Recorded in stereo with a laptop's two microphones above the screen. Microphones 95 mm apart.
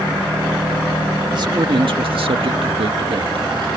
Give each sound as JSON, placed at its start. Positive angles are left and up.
{"t": 1.3, "sound": "a man speaking", "side_deg": -50}